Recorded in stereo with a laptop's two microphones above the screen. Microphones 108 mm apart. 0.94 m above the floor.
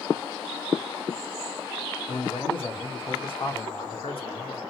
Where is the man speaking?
60° left (ahead or behind), 1.9 m.